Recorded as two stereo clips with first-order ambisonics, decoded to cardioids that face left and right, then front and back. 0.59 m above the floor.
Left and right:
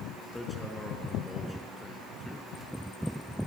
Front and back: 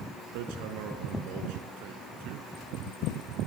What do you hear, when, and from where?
0.3 s hammering: 175° left, 4.5 m